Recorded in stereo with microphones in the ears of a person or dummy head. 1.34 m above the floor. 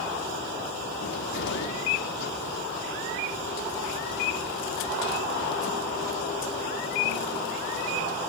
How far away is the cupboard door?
About 2.0 m.